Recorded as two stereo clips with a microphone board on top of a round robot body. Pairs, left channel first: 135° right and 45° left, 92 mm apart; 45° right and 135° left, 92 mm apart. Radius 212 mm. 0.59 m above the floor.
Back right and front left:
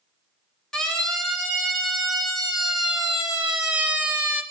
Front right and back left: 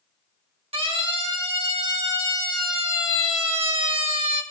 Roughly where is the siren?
Behind left.